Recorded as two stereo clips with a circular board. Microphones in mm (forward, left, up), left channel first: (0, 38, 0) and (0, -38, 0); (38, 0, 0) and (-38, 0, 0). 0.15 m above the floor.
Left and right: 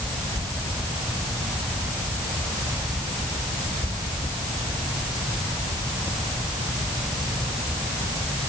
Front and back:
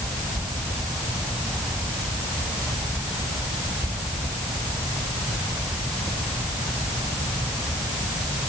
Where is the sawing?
No sawing in this recording.